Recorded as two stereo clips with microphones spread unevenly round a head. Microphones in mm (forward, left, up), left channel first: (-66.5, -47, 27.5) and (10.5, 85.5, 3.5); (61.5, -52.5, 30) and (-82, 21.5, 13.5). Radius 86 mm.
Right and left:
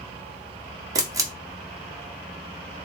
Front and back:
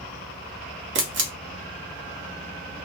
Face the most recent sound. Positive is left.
turn(degrees=130)